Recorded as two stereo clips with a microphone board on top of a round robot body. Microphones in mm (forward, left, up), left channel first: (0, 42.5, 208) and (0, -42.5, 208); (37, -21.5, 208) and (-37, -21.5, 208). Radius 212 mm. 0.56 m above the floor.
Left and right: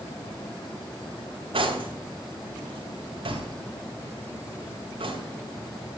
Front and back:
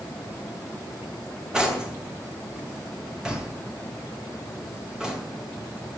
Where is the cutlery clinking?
100° right, 2.5 m.